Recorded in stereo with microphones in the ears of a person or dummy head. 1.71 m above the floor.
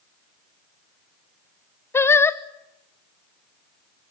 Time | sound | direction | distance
1.9 | singing | 10° left (ahead or behind) | 0.7 m